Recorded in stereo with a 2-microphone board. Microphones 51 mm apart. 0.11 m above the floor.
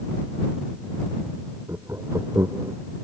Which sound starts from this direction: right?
Laughter, at 1.7 s.